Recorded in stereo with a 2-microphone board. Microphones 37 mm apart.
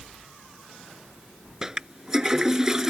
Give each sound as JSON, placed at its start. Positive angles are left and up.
{"t": 1.6, "sound": "a toilet flushing", "side_deg": -15}